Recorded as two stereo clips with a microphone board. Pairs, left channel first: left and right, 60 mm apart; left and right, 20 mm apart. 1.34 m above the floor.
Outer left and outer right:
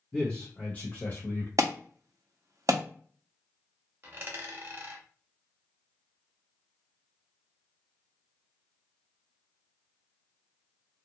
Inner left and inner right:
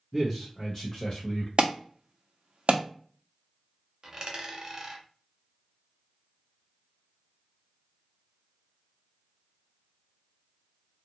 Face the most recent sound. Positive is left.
turn(degrees=-35)  # may be behind; listen again after turning